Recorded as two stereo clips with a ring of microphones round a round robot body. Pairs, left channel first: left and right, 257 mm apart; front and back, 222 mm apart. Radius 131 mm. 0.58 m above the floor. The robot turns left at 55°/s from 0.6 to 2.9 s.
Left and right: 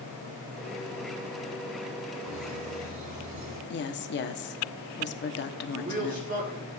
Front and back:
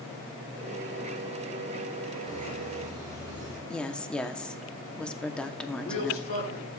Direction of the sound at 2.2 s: 70° right.